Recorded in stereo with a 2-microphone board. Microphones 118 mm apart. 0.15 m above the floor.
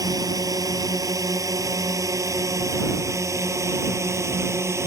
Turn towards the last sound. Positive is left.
turn(degrees=-25)  # may be behind; listen again after turning